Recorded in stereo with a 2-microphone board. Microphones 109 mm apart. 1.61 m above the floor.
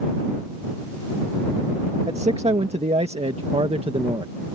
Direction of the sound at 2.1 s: 80° right.